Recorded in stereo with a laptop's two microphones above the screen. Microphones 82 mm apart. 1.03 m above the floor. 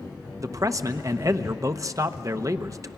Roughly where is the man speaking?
Right.